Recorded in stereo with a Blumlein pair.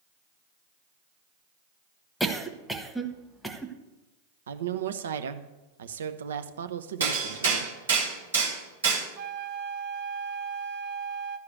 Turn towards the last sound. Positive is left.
turn(degrees=-35)